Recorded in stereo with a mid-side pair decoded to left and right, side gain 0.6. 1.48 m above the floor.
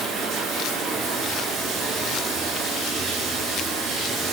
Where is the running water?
55° right, 1.7 m.